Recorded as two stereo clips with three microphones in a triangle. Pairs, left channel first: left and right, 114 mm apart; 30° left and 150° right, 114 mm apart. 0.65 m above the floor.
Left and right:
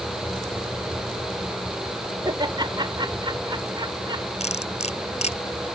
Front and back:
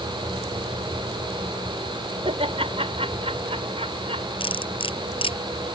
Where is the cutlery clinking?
70° left.